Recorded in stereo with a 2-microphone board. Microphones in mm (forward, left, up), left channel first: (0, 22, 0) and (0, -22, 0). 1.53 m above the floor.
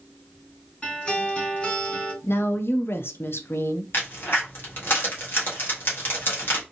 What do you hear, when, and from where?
0.8 s a guitar: 25° left (ahead or behind), 2.5 m
2.2 s a woman speaking: 60° left (ahead or behind), 0.5 m
3.9 s a crack: 50° left (ahead or behind), 1.5 m